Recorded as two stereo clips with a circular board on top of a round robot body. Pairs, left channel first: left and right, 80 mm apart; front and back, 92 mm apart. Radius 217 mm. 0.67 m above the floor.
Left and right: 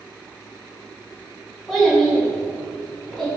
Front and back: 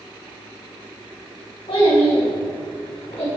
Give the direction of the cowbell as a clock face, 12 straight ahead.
I don't hear a cowbell.